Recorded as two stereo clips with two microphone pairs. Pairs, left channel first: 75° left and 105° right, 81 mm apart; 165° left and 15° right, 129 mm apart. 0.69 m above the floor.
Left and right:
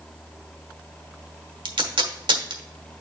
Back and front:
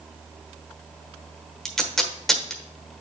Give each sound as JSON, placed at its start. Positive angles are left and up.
{"t": 1.6, "sound": "tape being pulled", "azimuth_deg": -110, "distance_m": 1.2}